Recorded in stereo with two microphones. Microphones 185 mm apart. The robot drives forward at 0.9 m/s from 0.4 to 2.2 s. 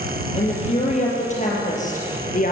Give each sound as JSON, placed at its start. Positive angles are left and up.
{"t": 0.3, "sound": "a woman speaking", "side_deg": 35, "distance_m": 6.5}